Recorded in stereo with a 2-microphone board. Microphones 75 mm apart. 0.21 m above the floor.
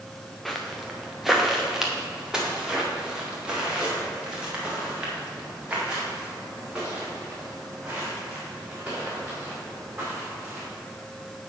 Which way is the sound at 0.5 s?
5° left (ahead or behind).